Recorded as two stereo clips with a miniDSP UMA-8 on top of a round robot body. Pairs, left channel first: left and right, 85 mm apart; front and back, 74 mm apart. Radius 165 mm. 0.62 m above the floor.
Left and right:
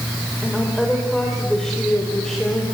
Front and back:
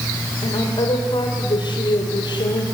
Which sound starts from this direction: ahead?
A woman speaking, at 0.4 s.